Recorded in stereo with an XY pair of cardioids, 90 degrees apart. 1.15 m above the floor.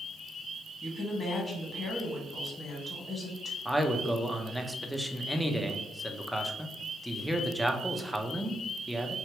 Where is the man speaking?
Straight ahead, 0.8 m.